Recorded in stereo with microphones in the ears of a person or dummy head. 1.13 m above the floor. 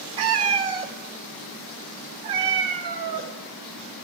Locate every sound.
0.2 s a cat meowing: 30° right (ahead or behind), 0.7 m